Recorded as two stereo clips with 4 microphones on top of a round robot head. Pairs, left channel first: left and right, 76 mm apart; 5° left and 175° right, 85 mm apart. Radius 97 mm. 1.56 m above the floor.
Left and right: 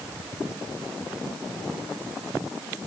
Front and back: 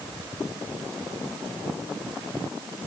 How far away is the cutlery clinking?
I don't hear cutlery clinking.